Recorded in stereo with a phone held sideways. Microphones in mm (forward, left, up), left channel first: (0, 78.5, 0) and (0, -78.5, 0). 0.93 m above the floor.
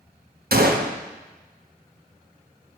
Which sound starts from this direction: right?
A gunshot, at 0.5 s.